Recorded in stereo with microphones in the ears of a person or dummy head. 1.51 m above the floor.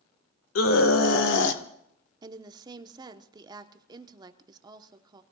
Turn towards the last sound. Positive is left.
turn(degrees=-15)  # may be behind; listen again after turning